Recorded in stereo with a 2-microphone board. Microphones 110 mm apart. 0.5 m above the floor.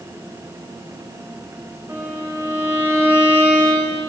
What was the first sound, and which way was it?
A violin, 25° right (ahead or behind).